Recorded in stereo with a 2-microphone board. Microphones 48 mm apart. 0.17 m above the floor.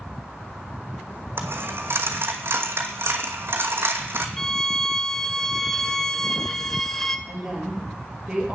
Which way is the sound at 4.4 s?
10° left (ahead or behind).